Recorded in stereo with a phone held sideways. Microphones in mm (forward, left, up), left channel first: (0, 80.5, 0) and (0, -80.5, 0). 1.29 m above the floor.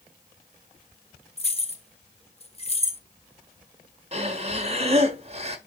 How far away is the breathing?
About 1.3 m.